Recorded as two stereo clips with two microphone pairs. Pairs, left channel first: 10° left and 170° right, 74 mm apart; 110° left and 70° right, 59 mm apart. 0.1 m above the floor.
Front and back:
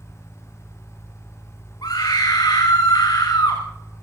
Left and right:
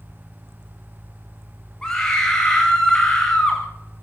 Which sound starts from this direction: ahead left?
A scream, at 1.8 s.